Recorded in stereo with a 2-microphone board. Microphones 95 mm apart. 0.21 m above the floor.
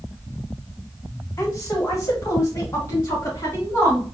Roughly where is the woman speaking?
Left.